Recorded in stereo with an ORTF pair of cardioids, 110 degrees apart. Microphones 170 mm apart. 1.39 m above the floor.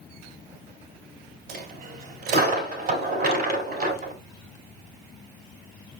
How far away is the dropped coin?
About 3.5 m.